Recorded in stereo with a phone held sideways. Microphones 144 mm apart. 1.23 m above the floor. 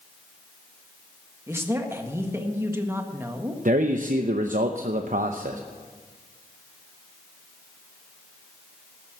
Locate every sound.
1.5 s a man speaking: 15° right (ahead or behind), 1.4 m
3.6 s a man speaking: 65° right (ahead or behind), 0.7 m